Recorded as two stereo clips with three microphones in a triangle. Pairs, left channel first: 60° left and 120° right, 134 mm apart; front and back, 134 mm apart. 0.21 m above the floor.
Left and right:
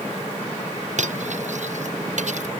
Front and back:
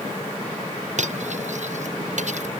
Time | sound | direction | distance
1.0 | cutlery clinking | 150° right | ?